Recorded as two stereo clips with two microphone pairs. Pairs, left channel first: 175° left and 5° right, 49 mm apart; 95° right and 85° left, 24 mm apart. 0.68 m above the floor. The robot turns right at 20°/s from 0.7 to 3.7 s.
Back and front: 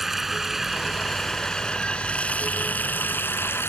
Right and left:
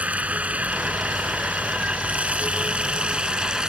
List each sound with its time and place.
0.0 s running water: 80° left; by 3.7 s 140° left